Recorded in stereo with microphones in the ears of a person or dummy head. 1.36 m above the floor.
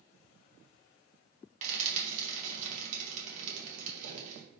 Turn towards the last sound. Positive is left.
turn(degrees=-50)  # may be behind; listen again after turning